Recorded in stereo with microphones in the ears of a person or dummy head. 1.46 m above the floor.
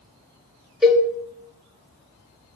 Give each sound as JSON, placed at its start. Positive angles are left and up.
{"t": 0.8, "sound": "a cowbell", "side_deg": 0, "distance_m": 0.8}